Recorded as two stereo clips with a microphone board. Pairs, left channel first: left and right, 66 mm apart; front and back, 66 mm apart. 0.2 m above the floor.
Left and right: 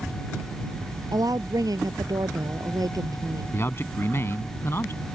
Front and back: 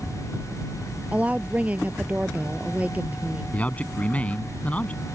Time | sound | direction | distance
1.1 | a woman speaking | 110° right | ?
3.5 | a man speaking | 60° left | ?